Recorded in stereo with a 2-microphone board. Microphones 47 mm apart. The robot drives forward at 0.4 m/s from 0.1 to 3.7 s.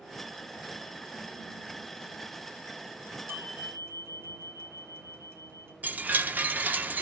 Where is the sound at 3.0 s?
65° right (ahead or behind), 4 m; by 5.7 s 60° right (ahead or behind), 4.5 m.